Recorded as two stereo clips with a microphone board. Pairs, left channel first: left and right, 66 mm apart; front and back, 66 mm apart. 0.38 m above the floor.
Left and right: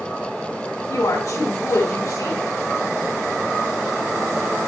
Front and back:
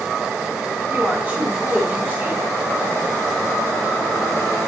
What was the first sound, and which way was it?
A woman speaking, 120° left.